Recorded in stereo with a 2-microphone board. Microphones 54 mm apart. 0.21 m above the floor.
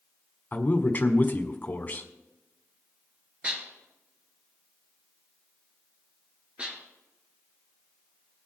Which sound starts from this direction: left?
A man speaking, at 0.5 s.